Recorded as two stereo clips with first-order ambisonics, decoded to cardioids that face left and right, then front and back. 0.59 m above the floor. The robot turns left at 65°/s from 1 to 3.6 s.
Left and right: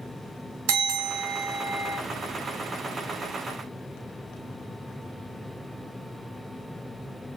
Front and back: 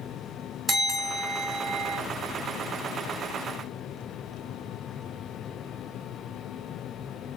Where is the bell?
95° right, 2.5 m; by 2.0 s 160° right, 2.5 m.